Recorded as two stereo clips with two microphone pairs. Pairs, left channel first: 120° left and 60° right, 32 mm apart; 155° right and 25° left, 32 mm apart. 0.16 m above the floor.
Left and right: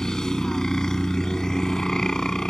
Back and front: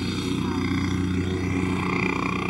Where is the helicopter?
90° left.